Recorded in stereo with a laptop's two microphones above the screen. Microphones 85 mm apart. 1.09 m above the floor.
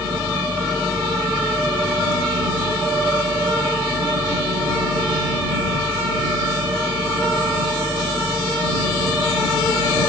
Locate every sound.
0.0 s a machine running: 80° right